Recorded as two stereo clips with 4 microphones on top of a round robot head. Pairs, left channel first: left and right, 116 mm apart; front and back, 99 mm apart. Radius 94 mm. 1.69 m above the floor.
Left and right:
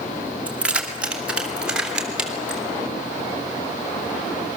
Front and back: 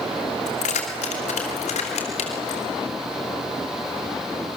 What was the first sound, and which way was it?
Keys jangling, 10° right.